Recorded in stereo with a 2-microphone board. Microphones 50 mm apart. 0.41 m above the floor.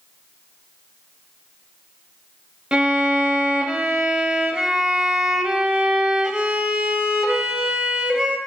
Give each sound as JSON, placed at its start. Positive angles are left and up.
{"t": 2.7, "sound": "a violin", "side_deg": -15, "distance_m": 0.7}